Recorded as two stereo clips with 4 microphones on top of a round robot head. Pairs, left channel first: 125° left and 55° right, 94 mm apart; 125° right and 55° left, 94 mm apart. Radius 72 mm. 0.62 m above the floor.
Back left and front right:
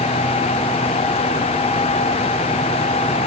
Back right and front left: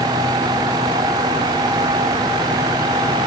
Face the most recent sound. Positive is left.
No sound to turn to.